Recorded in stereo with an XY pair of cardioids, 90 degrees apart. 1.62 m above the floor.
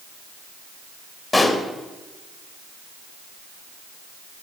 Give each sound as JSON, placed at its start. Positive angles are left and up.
{"t": 1.3, "sound": "a pop", "azimuth_deg": 30, "distance_m": 2.5}